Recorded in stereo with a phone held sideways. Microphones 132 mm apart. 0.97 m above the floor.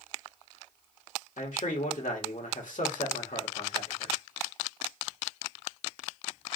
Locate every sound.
1.4 s a man speaking: 75° left (ahead or behind), 1.5 m